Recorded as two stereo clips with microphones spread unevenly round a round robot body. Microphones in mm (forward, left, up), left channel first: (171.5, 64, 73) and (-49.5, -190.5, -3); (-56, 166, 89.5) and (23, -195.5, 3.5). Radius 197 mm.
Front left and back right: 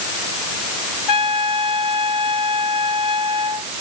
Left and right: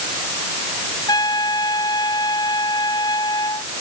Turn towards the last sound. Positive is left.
turn(degrees=20)